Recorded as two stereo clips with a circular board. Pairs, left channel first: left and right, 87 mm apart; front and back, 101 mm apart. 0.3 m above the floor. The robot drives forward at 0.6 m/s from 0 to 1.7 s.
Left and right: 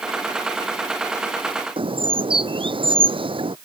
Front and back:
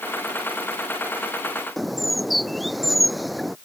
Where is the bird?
90° right.